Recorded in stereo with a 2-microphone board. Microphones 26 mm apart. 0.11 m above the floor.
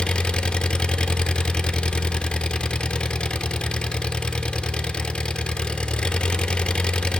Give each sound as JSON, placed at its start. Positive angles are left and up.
{"t": 0.0, "sound": "an engine running", "side_deg": 40, "distance_m": 0.8}